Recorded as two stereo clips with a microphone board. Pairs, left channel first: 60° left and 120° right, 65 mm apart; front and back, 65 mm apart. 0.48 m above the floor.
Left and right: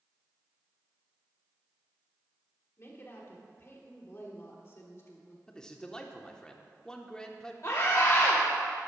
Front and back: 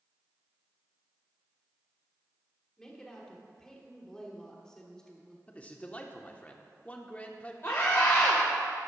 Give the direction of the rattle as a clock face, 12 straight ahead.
No rattle in this recording.